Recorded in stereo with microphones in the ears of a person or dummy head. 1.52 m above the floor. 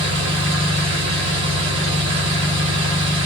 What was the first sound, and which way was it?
An engine running, 60° right (ahead or behind).